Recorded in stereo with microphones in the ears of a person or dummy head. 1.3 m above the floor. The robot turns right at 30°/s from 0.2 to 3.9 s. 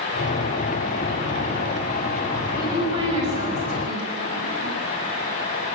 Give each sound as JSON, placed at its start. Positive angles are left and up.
{"t": 2.5, "sound": "a woman speaking", "side_deg": -15, "distance_m": 6.5}